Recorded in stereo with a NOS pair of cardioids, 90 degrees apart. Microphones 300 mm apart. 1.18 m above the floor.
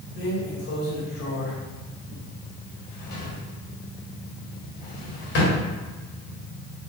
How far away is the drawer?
About 1.6 m.